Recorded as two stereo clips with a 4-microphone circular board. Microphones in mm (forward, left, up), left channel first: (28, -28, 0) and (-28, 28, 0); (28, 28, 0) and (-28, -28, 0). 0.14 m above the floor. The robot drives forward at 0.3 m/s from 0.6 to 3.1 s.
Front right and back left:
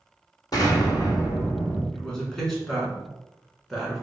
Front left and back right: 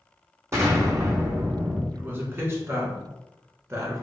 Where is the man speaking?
110° right, 1.1 m; by 4.0 s 135° right, 1.3 m.